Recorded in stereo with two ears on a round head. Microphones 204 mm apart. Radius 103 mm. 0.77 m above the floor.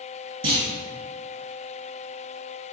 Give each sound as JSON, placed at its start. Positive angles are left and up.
{"t": 0.4, "sound": "a clunk", "side_deg": -30, "distance_m": 1.8}